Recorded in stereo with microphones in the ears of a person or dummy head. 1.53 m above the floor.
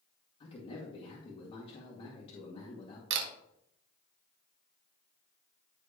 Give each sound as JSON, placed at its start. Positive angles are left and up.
{"t": 0.4, "sound": "a man speaking", "side_deg": 35, "distance_m": 2.0}
{"t": 3.1, "sound": "a camera shutter", "side_deg": -65, "distance_m": 1.6}